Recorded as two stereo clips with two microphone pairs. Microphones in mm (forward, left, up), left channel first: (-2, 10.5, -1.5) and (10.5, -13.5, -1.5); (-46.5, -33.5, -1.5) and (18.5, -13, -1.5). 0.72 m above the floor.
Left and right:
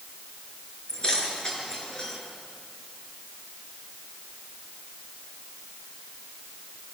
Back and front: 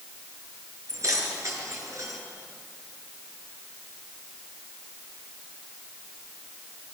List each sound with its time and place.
0.9 s keys jangling: 55° left, 6.5 m